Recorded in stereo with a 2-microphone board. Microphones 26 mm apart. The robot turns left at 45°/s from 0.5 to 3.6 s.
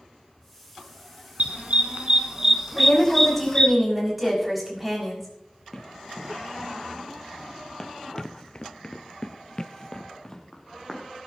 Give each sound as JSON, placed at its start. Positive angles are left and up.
{"t": 1.4, "sound": "a dog barking", "side_deg": -70, "distance_m": 2.0}
{"t": 2.8, "sound": "a woman speaking", "azimuth_deg": 30, "distance_m": 6.5}
{"t": 5.7, "sound": "running footsteps", "side_deg": 5, "distance_m": 3.0}